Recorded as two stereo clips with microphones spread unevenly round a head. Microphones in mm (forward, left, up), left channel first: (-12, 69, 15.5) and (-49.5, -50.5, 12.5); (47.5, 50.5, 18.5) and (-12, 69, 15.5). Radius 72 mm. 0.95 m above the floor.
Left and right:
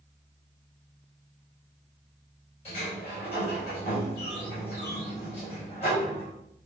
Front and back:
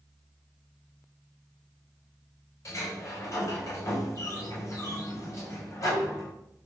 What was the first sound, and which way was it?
A sliding door, 20° left.